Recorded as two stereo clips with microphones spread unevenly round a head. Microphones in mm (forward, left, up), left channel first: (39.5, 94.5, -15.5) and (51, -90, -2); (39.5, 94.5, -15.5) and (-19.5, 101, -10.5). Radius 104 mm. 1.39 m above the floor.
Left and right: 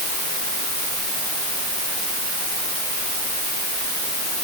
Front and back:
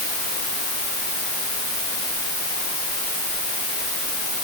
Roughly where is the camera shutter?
I don't hear a camera shutter.